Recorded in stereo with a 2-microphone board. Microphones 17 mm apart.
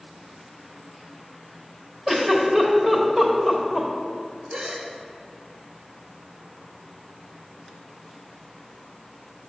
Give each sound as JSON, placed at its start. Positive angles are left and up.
{"t": 2.1, "sound": "a giggle", "side_deg": -25, "distance_m": 1.3}
{"t": 4.5, "sound": "a gasp", "side_deg": -70, "distance_m": 0.9}